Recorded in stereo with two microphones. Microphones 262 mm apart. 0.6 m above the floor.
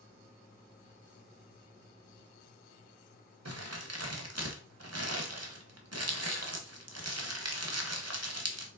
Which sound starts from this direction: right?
Crumpling, at 3.5 s.